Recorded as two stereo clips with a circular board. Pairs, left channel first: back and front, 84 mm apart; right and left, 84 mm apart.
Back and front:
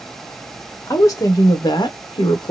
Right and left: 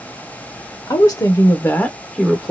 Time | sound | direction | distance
0.9 | a woman speaking | 130° right | 1.0 m